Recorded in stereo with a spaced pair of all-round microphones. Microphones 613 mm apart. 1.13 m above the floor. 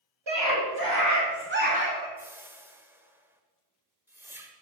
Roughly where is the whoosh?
Centre.